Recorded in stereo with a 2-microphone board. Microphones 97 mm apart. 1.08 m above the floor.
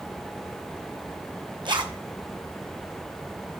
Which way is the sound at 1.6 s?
55° right (ahead or behind).